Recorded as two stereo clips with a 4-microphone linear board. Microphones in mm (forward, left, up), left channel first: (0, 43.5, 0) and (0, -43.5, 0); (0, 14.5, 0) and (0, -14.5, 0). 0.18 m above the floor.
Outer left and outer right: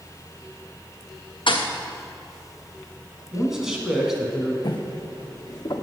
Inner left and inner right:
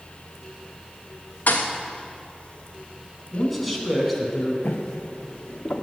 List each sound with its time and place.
1.5 s a thud: 70° left (ahead or behind), 1.3 m
3.3 s a man speaking: 5° right (ahead or behind), 1.6 m
4.6 s footsteps: 50° left (ahead or behind), 1.2 m